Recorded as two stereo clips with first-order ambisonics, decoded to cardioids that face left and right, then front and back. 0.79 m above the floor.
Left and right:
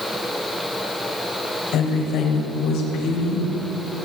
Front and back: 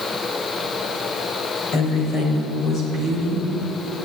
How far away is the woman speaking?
About 3.5 m.